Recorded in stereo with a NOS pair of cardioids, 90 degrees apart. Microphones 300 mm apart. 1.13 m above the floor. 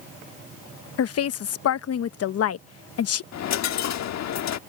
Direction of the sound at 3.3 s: 65° left.